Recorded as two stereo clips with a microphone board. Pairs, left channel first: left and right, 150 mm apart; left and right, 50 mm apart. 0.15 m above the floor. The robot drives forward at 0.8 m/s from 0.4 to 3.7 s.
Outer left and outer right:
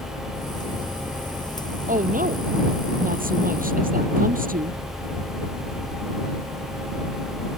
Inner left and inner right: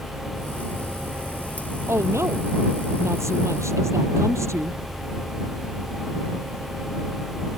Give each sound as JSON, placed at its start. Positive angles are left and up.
{"t": 1.9, "sound": "a woman speaking", "side_deg": -65}